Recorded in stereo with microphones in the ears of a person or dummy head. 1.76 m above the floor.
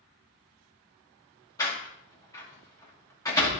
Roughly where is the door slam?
Centre.